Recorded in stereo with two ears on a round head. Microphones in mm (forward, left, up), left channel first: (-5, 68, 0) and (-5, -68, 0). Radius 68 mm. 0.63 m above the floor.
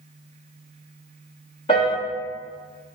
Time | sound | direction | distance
1.7 | a piano | 35° left (ahead or behind) | 0.7 m